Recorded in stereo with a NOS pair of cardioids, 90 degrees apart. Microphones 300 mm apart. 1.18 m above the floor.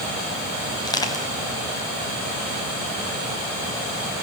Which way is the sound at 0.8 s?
15° left.